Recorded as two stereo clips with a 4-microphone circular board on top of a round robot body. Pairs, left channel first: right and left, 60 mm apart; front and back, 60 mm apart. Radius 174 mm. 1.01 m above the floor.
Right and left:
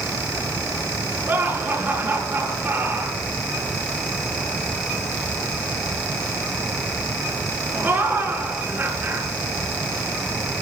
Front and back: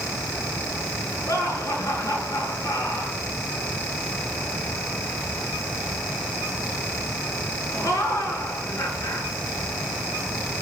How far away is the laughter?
About 9 m.